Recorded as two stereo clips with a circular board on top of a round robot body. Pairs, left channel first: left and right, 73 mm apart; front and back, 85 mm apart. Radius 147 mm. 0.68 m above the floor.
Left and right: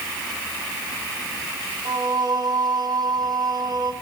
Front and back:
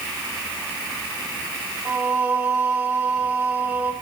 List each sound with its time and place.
1.9 s singing: 105° right, 5 m